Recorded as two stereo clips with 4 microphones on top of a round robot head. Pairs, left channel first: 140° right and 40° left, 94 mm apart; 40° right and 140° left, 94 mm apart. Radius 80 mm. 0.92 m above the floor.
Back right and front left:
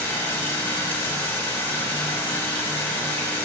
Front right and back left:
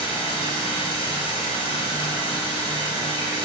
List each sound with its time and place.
0.0 s running water: 70° right, 3 m